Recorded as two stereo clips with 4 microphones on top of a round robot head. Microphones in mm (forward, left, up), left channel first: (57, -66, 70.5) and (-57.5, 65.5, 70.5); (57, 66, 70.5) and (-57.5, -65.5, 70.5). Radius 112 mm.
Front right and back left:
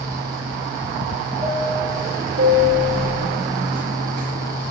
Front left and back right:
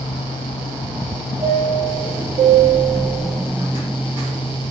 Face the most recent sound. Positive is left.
turn(degrees=160)